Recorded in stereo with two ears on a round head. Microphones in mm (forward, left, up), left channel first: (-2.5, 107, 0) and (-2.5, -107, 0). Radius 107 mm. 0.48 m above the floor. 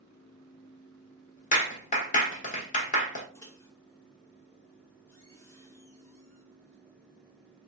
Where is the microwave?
10° left (ahead or behind), 0.8 m.